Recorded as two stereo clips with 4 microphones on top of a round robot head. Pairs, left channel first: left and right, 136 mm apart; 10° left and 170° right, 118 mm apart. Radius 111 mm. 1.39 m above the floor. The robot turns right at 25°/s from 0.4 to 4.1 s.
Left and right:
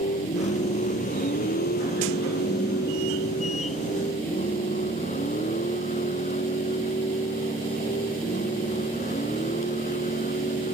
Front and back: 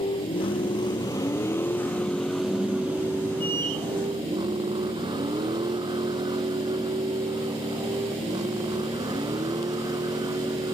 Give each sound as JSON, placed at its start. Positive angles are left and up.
{"t": 0.0, "sound": "a vehicle", "azimuth_deg": 55}